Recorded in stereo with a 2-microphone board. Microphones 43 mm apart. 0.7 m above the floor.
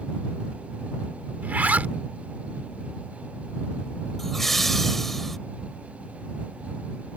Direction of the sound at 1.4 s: 40° right (ahead or behind).